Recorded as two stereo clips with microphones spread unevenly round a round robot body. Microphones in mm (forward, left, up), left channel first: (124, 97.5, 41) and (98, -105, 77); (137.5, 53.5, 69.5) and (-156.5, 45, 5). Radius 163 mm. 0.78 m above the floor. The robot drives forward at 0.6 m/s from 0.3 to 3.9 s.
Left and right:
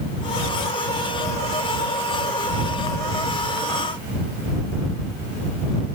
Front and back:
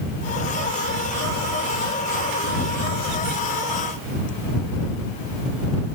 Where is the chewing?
No chewing in this recording.